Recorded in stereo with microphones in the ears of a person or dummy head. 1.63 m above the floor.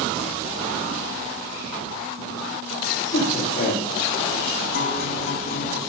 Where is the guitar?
65° left (ahead or behind), 3.5 m.